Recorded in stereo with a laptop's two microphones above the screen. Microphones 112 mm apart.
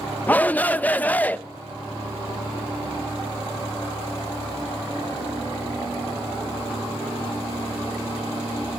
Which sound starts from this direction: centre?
A shout, at 0.3 s.